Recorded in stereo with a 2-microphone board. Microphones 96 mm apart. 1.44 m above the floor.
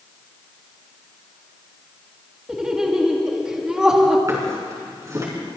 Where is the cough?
I don't hear a cough.